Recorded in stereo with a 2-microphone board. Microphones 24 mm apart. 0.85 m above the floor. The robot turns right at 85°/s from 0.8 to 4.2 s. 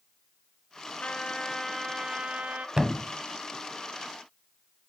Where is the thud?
25° right (ahead or behind), 0.9 m; by 3.1 s 5° right (ahead or behind), 0.9 m.